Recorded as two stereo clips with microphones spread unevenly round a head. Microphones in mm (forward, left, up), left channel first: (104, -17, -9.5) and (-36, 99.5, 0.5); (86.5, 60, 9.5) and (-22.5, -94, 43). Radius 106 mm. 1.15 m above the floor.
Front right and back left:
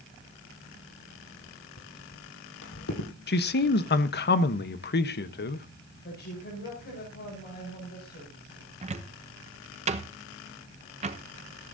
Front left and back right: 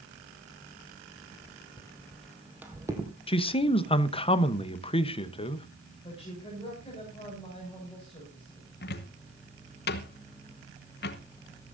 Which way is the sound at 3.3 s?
5° right.